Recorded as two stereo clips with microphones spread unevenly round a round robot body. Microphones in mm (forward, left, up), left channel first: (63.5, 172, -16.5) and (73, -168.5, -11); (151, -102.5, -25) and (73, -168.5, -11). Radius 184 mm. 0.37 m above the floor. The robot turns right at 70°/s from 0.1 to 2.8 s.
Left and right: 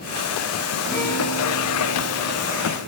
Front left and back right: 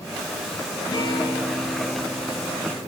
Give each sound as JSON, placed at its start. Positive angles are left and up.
{"t": 0.9, "sound": "a guitar", "azimuth_deg": 0, "distance_m": 8.5}